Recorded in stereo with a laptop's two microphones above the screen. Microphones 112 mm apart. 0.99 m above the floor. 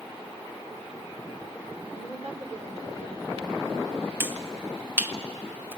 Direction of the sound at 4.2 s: 20° right (ahead or behind).